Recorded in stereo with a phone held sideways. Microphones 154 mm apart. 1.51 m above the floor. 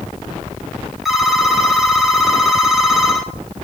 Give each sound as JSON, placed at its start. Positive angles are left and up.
{"t": 1.1, "sound": "a phone ringing", "side_deg": 0, "distance_m": 1.6}